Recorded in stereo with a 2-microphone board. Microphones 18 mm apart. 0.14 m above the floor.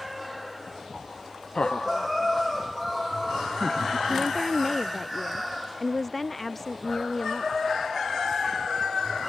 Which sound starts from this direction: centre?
A woman speaking, at 4.1 s.